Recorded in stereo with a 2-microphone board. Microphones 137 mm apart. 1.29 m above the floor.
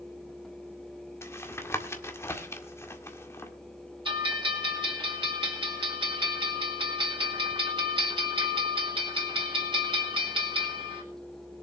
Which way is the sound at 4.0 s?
35° right (ahead or behind).